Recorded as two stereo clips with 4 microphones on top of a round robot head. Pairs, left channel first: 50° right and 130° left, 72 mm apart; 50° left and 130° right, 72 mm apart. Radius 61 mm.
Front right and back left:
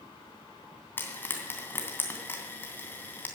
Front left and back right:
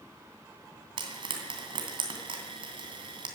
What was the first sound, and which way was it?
Frying, 115° right.